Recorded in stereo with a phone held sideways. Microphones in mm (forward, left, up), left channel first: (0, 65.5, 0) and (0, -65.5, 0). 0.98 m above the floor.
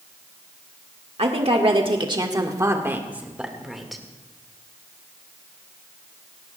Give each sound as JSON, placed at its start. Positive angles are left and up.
{"t": 1.2, "sound": "a woman speaking", "side_deg": -55, "distance_m": 1.5}